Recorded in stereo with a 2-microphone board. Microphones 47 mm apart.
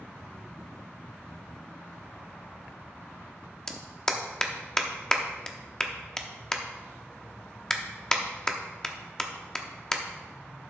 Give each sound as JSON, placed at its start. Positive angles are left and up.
{"t": 3.7, "sound": "a clap", "side_deg": 10, "distance_m": 0.7}